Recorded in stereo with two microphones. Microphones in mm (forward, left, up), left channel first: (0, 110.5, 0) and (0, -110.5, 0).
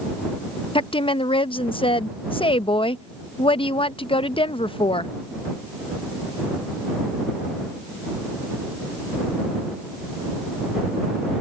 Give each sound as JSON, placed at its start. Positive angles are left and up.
{"t": 0.8, "sound": "a woman speaking", "side_deg": 25}